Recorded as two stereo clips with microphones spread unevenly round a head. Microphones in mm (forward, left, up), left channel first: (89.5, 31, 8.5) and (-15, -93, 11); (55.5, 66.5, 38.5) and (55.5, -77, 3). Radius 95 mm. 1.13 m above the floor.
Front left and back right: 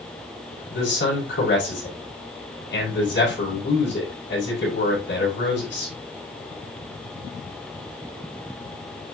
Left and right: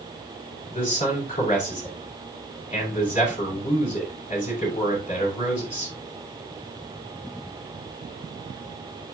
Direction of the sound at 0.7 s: 40° left.